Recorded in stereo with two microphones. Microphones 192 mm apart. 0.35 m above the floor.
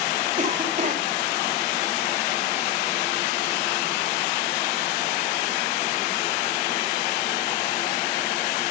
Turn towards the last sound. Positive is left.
turn(degrees=-45)  # may be behind; listen again after turning